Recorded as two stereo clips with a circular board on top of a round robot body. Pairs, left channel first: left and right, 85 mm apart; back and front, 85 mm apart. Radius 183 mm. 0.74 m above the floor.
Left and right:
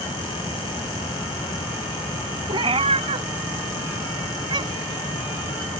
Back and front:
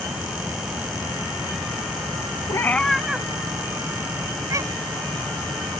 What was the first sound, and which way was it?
A cat meowing, 125° right.